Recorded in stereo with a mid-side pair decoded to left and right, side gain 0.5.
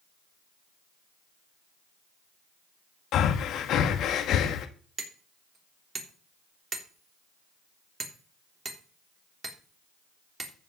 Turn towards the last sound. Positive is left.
turn(degrees=-25)